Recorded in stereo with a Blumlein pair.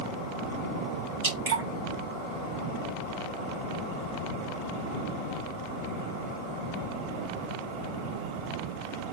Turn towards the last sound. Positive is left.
turn(degrees=-55)